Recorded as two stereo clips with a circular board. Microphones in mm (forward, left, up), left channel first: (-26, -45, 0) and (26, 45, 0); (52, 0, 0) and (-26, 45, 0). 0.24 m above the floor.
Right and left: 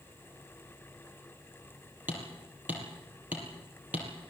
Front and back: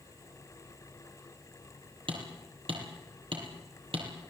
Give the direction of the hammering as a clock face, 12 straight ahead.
8 o'clock.